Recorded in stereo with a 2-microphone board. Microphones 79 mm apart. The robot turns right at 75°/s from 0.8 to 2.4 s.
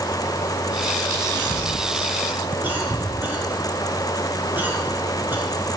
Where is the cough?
65° right (ahead or behind), 3.5 m; by 5.4 s 25° right (ahead or behind), 3.5 m.